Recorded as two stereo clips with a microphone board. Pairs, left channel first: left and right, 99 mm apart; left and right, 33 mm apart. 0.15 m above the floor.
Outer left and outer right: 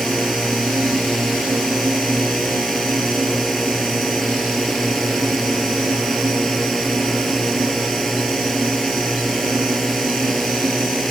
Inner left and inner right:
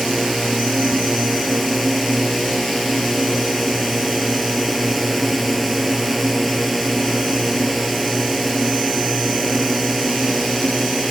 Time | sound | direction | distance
0.0 | a drone | centre (ahead or behind) | ?